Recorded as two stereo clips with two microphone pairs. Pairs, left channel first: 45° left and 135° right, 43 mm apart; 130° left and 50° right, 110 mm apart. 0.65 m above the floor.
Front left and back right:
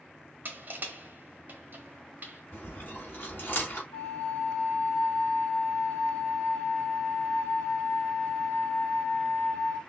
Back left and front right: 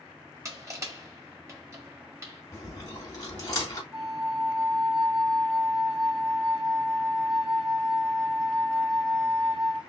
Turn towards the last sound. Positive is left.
turn(degrees=75)